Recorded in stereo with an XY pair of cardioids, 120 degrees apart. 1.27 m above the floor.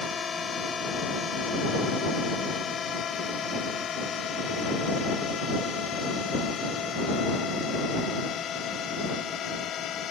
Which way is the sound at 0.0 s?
30° left.